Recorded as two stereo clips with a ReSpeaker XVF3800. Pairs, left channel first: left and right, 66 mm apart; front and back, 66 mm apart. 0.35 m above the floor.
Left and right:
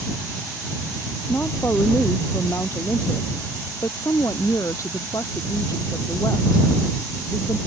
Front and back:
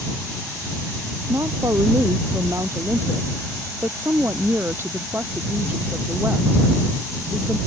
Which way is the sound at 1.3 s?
150° left.